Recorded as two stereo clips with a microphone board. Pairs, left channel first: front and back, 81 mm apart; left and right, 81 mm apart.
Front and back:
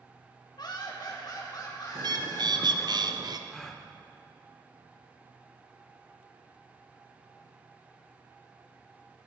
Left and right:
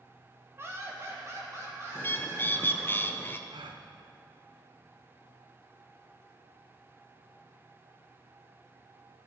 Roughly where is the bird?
Behind left.